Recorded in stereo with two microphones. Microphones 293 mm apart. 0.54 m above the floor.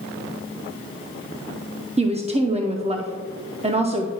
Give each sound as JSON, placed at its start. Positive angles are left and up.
{"t": 2.0, "sound": "a woman speaking", "side_deg": -20, "distance_m": 0.6}